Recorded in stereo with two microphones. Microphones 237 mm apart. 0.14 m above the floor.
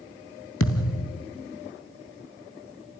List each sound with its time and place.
0.6 s a thud: 60° left (ahead or behind), 1.4 m